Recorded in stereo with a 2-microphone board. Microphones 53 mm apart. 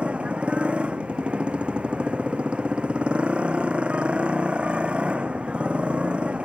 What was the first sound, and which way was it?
A motorcycle, 25° right (ahead or behind).